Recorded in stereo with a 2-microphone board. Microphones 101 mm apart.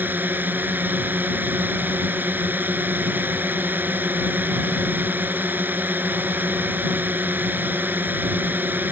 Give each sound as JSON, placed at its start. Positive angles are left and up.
{"t": 0.0, "sound": "a drone", "side_deg": -20}